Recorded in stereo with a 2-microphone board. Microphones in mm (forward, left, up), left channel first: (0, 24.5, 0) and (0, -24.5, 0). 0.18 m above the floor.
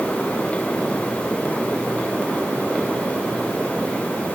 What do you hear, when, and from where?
Only background noise.